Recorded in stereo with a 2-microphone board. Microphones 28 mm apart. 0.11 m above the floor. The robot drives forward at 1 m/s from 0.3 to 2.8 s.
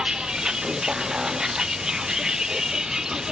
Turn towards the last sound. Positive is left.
turn(degrees=-25)  # may be behind; listen again after turning